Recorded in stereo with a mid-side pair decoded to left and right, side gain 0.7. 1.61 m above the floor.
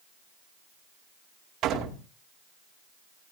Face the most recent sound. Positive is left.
turn(degrees=-50)